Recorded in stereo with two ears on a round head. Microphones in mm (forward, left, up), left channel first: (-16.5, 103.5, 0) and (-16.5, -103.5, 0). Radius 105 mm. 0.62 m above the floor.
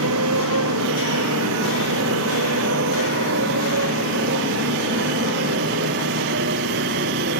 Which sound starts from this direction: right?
A motorcycle, at 0.0 s.